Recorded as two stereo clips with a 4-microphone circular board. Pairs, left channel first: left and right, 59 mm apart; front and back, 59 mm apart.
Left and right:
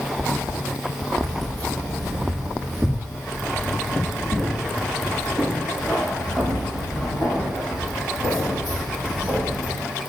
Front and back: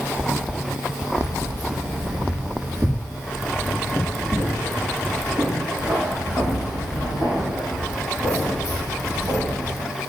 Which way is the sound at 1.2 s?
170° left.